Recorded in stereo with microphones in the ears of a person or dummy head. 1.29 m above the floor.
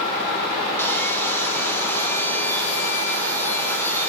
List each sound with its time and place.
0.8 s sawing: 10° left (ahead or behind), 0.9 m